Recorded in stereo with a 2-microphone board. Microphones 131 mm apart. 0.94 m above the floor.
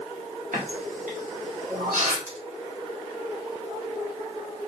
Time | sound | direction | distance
0.5 | a running tap | 85° right | 1.5 m
2.3 | a pop | 85° right | 2.5 m